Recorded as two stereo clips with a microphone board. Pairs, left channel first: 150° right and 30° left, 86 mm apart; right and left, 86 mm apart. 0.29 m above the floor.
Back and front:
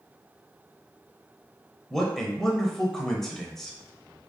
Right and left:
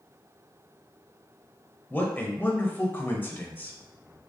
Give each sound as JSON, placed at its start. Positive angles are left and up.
{"t": 1.9, "sound": "a man speaking", "azimuth_deg": -75, "distance_m": 0.9}